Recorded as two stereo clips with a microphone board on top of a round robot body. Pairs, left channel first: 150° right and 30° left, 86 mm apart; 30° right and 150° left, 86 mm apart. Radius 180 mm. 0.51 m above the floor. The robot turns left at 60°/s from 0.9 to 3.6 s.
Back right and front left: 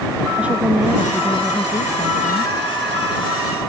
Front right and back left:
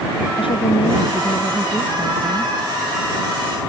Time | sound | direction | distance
0.3 | a woman speaking | 45° right | ?